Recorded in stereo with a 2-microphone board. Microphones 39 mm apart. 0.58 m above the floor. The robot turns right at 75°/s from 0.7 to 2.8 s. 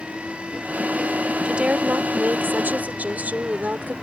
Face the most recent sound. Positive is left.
turn(degrees=-50)